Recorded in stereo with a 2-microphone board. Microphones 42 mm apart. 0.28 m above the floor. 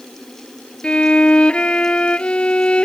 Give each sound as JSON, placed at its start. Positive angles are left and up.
{"t": 0.8, "sound": "a violin", "side_deg": 25}